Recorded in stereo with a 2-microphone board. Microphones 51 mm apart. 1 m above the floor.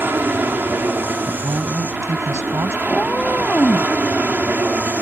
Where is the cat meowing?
35° left (ahead or behind).